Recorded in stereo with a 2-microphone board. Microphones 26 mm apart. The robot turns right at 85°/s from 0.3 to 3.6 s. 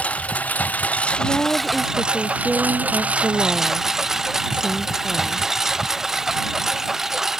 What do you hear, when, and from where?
0.0 s a lawn mower: 60° left; by 7.4 s 20° right
1.2 s a woman speaking: 60° left; by 5.5 s 90° right